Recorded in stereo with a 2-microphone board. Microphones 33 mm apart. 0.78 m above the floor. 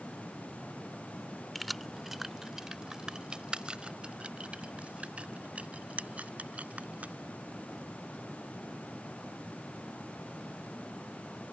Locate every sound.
1.6 s keys jangling: 5° left (ahead or behind); by 7.1 s 45° right (ahead or behind)